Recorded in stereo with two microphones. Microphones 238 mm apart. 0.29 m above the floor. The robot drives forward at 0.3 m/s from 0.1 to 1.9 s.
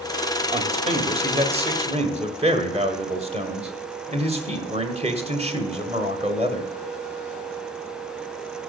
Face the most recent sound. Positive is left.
turn(degrees=-25)  # may be behind; listen again after turning